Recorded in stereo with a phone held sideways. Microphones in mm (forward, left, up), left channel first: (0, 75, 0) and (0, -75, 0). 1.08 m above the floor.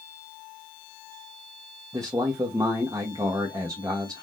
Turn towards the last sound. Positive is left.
turn(degrees=-25)  # may be behind; listen again after turning